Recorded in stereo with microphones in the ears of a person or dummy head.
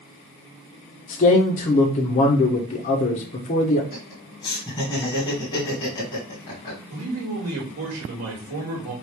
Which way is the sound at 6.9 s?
80° right.